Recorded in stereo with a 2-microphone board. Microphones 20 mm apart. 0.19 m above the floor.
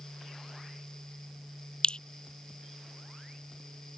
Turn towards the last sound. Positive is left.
turn(degrees=50)  # may be behind; listen again after turning